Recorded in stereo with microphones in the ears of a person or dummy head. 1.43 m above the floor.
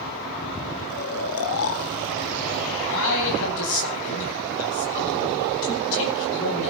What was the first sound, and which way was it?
Snoring, 65° left (ahead or behind).